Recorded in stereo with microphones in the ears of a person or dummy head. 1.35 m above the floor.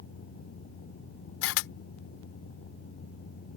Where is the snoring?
No snoring in this recording.